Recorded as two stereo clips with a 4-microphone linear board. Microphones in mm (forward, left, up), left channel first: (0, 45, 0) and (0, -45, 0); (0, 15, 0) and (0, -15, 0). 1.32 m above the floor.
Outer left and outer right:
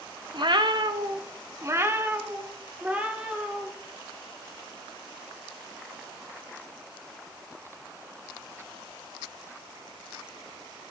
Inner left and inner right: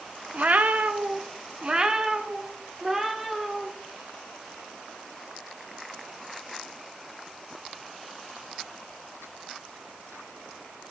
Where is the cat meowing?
55° right (ahead or behind), 0.9 m; by 3.7 s 10° right (ahead or behind), 2.5 m.